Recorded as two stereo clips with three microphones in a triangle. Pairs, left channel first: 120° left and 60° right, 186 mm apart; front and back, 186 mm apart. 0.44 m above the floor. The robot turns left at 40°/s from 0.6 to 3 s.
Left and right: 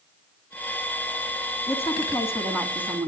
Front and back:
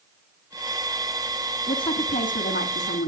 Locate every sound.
1.7 s a woman speaking: 70° left, 3.5 m; by 3.1 s 15° left, 3.5 m